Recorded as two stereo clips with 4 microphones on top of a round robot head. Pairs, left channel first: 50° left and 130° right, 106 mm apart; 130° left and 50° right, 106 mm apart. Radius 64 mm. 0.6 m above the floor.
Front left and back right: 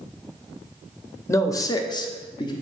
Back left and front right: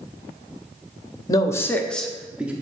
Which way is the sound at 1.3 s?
100° left.